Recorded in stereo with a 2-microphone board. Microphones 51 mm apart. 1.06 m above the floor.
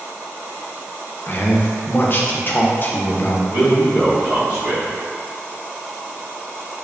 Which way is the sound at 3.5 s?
55° right (ahead or behind).